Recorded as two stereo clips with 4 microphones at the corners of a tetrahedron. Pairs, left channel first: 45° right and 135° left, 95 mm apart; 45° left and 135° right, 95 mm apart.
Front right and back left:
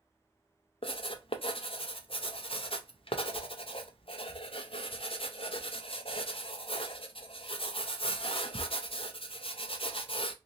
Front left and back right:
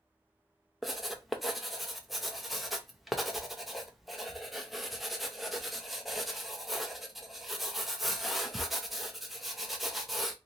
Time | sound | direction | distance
0.8 | writing | 45° right | 0.6 m